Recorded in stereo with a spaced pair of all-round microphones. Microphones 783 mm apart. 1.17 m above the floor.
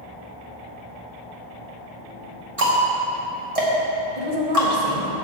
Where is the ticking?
45° right (ahead or behind), 1.7 m.